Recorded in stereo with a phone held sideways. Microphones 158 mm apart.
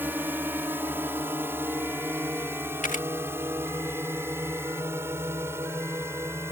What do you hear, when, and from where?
0.0 s a drone: 15° right (ahead or behind)
2.8 s a camera shutter: 55° left (ahead or behind)